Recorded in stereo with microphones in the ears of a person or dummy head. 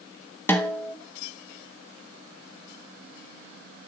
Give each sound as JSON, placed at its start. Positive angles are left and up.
{"t": 0.5, "sound": "a snare drum", "side_deg": 10, "distance_m": 1.1}